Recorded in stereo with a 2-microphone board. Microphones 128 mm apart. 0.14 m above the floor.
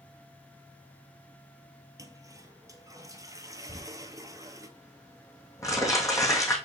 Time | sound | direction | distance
2.0 | a toilet flushing | 25° right (ahead or behind) | 0.9 m
3.7 | crumpling | 25° left (ahead or behind) | 2.5 m